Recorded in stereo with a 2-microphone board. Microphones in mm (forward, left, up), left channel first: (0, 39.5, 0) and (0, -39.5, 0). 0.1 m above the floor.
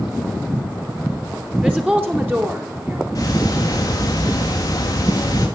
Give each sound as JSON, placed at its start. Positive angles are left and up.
{"t": 1.6, "sound": "a woman speaking", "side_deg": -15, "distance_m": 2.5}
{"t": 3.1, "sound": "ticking", "side_deg": 45, "distance_m": 4.0}